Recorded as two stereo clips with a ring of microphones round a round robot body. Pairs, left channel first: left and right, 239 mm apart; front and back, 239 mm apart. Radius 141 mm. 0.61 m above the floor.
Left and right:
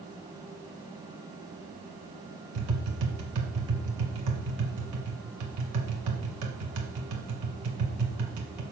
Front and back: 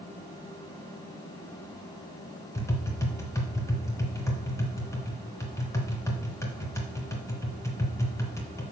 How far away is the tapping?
About 1.7 m.